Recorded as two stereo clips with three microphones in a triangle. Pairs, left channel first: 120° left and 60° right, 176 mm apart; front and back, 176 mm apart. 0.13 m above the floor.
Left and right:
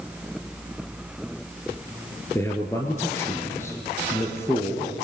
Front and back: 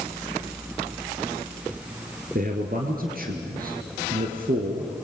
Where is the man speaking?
165° right, 2.5 m.